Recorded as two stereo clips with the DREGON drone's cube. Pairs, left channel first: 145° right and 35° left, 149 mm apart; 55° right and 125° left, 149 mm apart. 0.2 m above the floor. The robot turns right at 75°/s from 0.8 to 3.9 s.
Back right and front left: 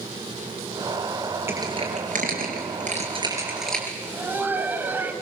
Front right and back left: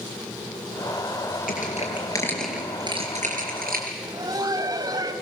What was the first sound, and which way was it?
Crushing, 40° right.